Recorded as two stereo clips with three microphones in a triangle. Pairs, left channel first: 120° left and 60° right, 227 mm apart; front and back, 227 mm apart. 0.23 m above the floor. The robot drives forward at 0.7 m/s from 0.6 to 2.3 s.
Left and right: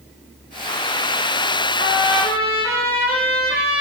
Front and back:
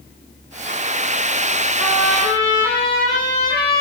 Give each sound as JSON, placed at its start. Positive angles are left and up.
{"t": 1.8, "sound": "a trumpet", "azimuth_deg": -105, "distance_m": 10.0}